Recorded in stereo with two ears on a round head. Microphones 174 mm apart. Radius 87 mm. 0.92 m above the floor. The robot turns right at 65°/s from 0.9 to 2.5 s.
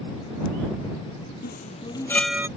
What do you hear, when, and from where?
1.4 s a chime: 55° left (ahead or behind); by 2.5 s 15° right (ahead or behind)